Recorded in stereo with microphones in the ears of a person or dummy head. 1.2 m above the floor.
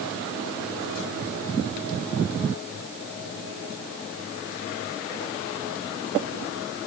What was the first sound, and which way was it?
Only background noise.